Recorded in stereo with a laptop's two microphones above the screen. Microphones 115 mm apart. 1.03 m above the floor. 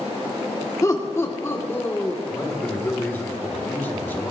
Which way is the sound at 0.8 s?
25° left (ahead or behind).